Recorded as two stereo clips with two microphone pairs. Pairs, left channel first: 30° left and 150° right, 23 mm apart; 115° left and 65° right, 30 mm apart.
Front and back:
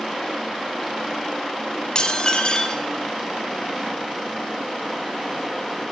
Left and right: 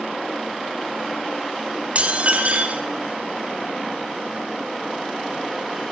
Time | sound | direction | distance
1.9 | dishes clattering | 25° right | 1.7 m